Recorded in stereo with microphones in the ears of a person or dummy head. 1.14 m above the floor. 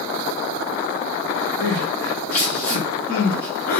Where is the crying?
65° left (ahead or behind), 3.5 m.